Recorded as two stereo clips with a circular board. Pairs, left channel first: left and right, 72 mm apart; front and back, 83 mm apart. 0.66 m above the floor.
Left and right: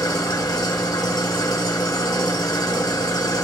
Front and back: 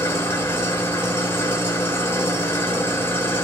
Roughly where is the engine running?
Ahead left.